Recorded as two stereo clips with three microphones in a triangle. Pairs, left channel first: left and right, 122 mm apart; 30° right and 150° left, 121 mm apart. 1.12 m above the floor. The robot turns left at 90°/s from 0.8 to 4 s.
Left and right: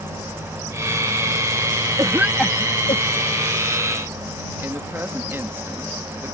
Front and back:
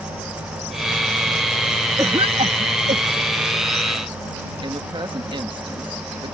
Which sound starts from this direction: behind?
A woman speaking, at 4.6 s.